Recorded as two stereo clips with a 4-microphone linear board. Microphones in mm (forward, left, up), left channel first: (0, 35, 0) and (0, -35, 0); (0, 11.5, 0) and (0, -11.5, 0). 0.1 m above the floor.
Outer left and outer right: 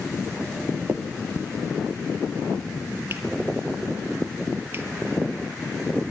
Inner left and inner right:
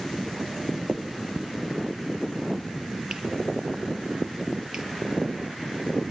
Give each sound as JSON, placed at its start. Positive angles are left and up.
{"t": 0.9, "sound": "a finger snap", "side_deg": -35, "distance_m": 1.8}